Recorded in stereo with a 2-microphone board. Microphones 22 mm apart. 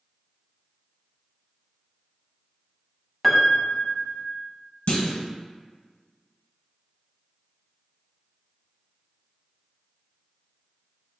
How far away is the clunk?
About 0.7 m.